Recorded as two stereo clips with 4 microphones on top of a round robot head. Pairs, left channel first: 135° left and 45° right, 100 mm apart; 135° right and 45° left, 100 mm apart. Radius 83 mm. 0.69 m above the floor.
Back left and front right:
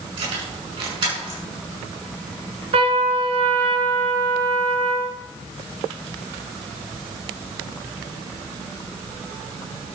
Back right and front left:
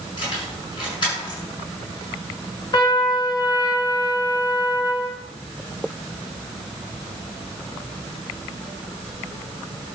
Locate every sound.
0.2 s keys jangling: 90° right, 6.5 m
2.7 s a trumpet: 80° right, 2 m